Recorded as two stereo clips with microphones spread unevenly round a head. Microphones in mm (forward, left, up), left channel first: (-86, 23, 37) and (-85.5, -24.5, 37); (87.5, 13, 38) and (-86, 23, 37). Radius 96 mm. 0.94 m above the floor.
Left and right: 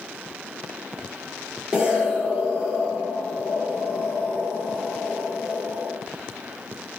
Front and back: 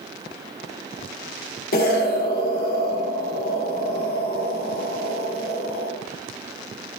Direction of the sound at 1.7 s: 15° right.